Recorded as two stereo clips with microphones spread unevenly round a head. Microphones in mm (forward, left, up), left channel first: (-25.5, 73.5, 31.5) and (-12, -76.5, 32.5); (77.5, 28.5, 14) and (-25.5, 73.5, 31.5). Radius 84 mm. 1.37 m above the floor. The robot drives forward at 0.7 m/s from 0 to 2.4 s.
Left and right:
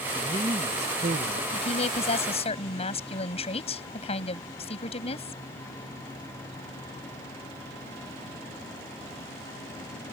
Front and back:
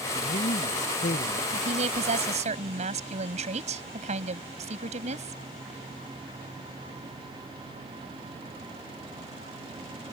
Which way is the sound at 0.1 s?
25° right.